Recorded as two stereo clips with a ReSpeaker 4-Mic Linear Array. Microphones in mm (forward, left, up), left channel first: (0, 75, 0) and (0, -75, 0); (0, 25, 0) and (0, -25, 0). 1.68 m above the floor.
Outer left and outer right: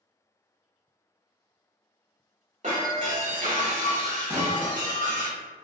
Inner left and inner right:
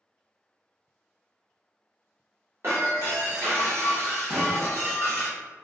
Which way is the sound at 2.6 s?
50° right (ahead or behind).